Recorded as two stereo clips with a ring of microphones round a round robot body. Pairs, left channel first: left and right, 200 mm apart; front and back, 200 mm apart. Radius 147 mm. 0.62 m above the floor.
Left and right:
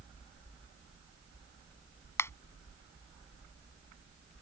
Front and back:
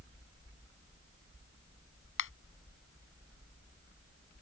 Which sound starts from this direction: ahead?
A finger snap, at 2.2 s.